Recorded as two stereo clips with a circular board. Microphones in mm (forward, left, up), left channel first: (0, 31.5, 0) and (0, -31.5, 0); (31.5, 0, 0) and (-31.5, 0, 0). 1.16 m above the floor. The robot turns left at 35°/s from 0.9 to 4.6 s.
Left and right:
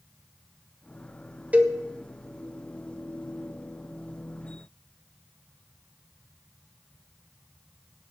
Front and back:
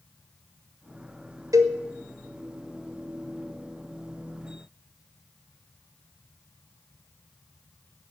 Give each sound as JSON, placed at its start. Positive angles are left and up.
{"t": 1.5, "sound": "a cowbell", "azimuth_deg": -155, "distance_m": 1.7}